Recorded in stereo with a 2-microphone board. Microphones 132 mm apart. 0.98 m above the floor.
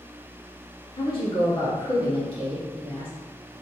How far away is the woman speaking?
About 1.4 m.